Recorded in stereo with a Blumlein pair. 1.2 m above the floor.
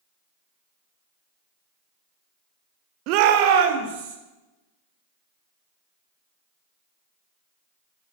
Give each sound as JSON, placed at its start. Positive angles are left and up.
{"t": 3.1, "sound": "a shout", "azimuth_deg": -40, "distance_m": 0.8}